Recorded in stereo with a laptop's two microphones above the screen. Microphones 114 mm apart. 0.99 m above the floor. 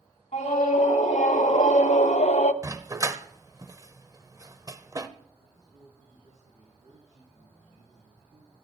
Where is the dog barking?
30° right (ahead or behind), 0.8 m.